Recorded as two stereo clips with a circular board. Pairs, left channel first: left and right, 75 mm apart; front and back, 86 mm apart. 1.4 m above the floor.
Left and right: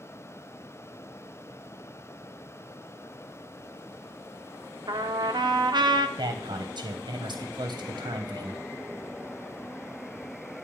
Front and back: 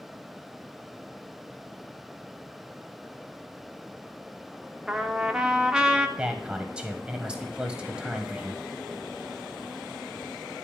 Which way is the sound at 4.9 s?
95° right.